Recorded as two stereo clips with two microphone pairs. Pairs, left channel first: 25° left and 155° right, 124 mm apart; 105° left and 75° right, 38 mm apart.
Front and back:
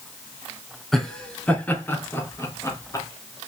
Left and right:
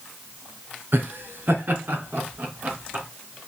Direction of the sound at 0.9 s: 60° right.